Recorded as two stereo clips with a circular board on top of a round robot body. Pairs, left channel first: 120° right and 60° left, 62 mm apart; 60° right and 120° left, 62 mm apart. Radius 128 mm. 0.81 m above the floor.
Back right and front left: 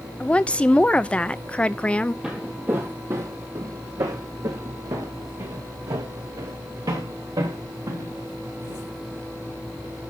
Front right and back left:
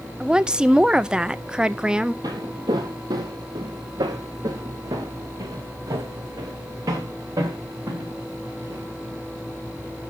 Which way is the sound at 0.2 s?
175° right.